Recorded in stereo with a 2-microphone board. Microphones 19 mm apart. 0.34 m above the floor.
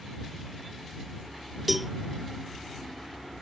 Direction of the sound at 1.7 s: 10° right (ahead or behind).